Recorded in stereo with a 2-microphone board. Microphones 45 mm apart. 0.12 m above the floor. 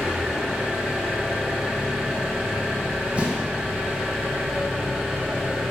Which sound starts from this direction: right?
An explosion, at 3.1 s.